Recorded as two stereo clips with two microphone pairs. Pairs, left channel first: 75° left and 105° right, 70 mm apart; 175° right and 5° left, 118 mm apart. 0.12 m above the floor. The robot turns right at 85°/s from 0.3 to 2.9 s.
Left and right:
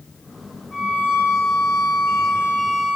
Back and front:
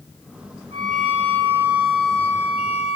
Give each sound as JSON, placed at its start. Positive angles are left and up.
{"t": 0.7, "sound": "a violin", "azimuth_deg": -10, "distance_m": 3.0}